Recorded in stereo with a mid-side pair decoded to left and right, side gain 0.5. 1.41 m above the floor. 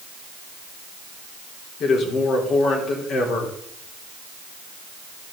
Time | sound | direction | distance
1.8 | a man speaking | 60° left | 3 m